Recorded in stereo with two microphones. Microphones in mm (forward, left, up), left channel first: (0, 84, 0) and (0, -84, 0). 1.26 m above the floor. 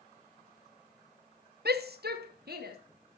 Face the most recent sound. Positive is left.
turn(degrees=-70)  # may be behind; listen again after turning